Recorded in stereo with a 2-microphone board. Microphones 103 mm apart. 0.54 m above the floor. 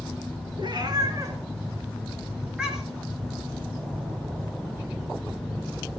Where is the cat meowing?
45° right (ahead or behind), 2.5 m; by 3.1 s centre (ahead or behind), 3.5 m.